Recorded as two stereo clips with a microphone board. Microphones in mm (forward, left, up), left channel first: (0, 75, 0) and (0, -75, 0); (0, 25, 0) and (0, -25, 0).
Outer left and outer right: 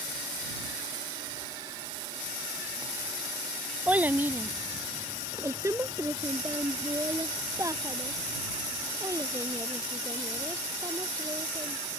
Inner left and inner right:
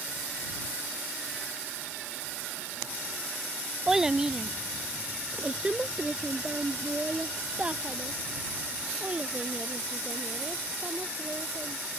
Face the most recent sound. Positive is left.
turn(degrees=-25)  # may be behind; listen again after turning